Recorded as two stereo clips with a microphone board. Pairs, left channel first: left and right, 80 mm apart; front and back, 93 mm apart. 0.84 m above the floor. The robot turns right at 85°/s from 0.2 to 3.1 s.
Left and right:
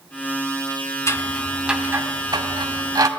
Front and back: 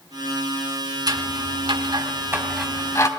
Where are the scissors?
140° left, 1.4 m; by 3.1 s 50° right, 1.4 m.